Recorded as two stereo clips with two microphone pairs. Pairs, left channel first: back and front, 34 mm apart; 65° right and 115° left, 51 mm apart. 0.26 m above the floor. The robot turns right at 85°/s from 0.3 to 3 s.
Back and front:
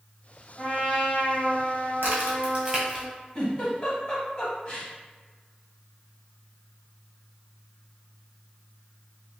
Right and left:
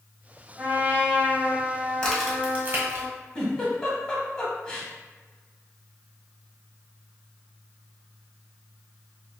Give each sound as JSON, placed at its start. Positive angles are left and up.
{"t": 0.6, "sound": "a trumpet", "azimuth_deg": 80, "distance_m": 1.1}
{"t": 2.0, "sound": "a crack", "azimuth_deg": 10, "distance_m": 1.1}
{"t": 3.4, "sound": "a giggle", "azimuth_deg": -130, "distance_m": 0.8}